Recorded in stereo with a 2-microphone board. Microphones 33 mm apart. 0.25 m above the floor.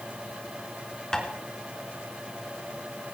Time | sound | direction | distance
1.1 | tapping | 20° left (ahead or behind) | 4 m